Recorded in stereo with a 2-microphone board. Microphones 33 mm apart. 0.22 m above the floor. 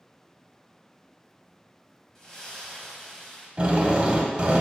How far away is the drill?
About 0.6 m.